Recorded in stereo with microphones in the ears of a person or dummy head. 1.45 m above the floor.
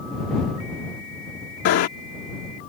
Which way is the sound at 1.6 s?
55° left (ahead or behind).